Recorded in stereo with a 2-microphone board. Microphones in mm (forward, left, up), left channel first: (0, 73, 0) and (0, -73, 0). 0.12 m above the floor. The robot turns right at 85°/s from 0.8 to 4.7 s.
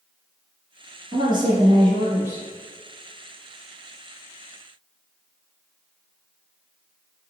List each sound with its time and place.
1.1 s a woman speaking: 130° right, 1.7 m; by 2.5 s 15° right, 1.7 m